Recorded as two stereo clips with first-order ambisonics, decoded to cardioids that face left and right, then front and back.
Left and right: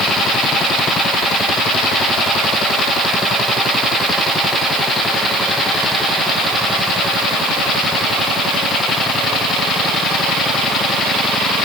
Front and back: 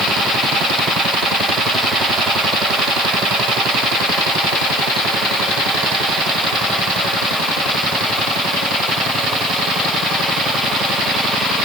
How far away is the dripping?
No dripping in this recording.